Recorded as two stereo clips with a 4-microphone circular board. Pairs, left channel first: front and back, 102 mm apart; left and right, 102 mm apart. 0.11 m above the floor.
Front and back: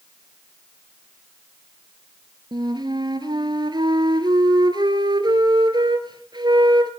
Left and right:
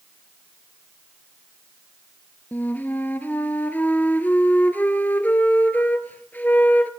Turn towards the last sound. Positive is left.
turn(degrees=160)